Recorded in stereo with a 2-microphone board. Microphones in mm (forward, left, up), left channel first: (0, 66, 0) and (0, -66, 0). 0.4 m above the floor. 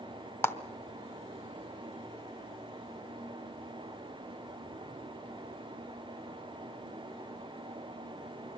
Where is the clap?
15° left (ahead or behind), 0.8 m.